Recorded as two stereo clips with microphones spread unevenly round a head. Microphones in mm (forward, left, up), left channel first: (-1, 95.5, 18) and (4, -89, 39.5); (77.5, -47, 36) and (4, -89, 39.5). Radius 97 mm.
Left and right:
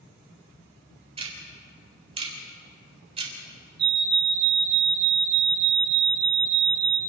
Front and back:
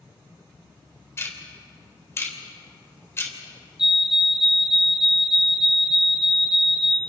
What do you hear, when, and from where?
1.2 s ticking: 30° right, 3.5 m
3.8 s a fire alarm: 65° right, 2.5 m